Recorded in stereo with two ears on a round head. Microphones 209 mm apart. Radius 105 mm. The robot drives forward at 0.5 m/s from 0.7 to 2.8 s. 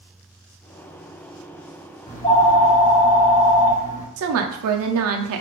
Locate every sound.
2.1 s a phone ringing: 15° left (ahead or behind), 1.3 m
4.2 s a woman speaking: 65° right (ahead or behind), 0.5 m